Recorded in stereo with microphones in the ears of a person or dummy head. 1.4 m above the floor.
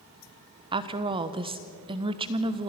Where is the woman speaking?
20° right (ahead or behind), 1.1 m.